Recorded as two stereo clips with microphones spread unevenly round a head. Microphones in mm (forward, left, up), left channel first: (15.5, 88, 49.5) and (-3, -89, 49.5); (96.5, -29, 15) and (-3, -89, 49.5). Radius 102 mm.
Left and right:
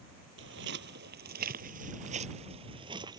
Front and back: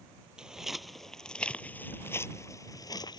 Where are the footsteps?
75° right; by 3.2 s 30° right.